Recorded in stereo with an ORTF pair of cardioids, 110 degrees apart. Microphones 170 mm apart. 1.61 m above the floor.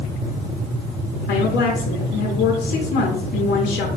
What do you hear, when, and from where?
1.3 s a woman speaking: 70° left, 0.7 m